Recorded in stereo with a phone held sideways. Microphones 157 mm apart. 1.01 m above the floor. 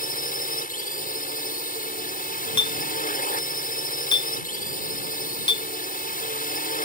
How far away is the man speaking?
No man speaking in this recording.